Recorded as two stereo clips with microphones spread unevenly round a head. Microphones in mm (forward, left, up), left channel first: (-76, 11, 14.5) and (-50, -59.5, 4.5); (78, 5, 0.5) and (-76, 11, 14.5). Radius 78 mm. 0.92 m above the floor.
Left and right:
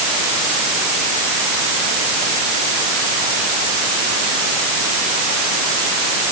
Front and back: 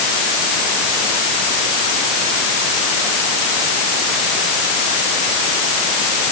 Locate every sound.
Only background noise.